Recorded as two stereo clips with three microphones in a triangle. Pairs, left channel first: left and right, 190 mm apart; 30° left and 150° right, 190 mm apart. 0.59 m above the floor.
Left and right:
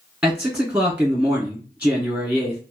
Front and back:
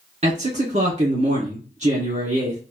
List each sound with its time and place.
0.2 s a man speaking: 165° right, 1.5 m